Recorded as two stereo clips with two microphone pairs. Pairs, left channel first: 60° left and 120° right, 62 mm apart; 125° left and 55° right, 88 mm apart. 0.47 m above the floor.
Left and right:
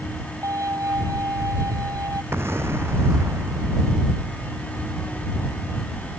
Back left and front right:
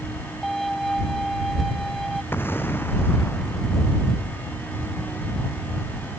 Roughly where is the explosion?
Behind.